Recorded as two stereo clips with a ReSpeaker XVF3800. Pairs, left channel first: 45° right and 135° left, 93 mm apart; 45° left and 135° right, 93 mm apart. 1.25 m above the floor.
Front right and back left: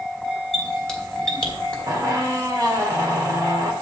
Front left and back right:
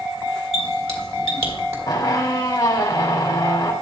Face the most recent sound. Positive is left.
turn(degrees=90)